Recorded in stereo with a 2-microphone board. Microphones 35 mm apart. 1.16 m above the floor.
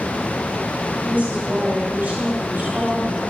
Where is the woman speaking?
55° right (ahead or behind), 4.5 m.